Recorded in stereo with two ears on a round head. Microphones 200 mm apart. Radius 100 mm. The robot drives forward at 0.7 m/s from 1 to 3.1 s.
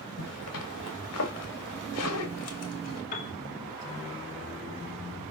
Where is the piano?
40° left (ahead or behind), 3.5 m.